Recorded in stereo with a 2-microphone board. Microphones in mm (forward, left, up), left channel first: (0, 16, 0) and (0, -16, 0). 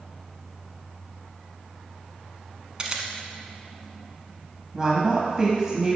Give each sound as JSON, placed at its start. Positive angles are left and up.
{"t": 2.8, "sound": "a camera shutter", "side_deg": -25, "distance_m": 0.8}
{"t": 4.7, "sound": "a woman speaking", "side_deg": -20, "distance_m": 1.0}